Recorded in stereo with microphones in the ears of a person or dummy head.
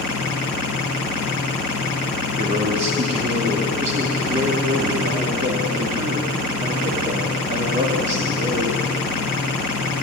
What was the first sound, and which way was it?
A man speaking, 30° right (ahead or behind).